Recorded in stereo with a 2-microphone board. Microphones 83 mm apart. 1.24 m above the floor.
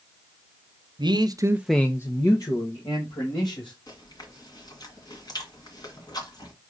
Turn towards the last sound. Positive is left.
turn(degrees=55)  # may be behind; listen again after turning